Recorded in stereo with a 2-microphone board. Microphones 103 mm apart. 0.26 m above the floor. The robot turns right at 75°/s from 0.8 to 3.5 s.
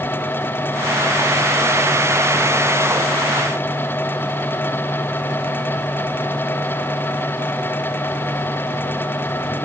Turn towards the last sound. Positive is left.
No sound to turn to.